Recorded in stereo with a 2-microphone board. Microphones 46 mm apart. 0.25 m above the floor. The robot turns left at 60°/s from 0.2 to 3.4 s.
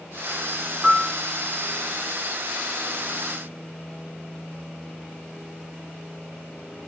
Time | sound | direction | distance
0.8 | a piano | 5° right (ahead or behind) | 2.5 m